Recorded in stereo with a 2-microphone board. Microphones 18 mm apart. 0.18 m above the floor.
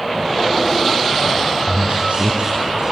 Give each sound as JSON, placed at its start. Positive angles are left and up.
{"t": 1.6, "sound": "a man speaking", "side_deg": -70, "distance_m": 3.0}